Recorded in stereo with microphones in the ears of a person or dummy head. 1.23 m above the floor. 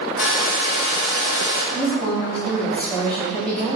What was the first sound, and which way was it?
A hair dryer, 65° left (ahead or behind).